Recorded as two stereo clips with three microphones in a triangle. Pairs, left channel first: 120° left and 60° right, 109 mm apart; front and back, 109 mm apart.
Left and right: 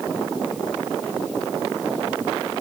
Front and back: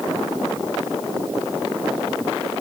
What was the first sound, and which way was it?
Only background noise.